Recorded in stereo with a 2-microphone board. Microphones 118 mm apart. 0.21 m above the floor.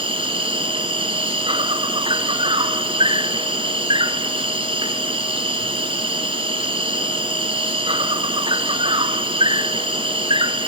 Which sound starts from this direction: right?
An insect, at 0.0 s.